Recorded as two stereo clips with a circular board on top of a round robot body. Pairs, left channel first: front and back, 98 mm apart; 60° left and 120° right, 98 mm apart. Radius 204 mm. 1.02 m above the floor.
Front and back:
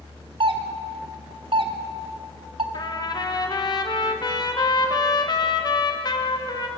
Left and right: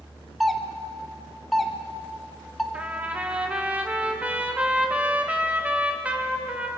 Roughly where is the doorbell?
Behind left.